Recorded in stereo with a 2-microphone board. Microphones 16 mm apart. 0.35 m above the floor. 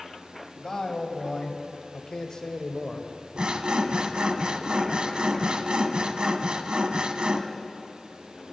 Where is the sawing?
80° right, 0.7 m.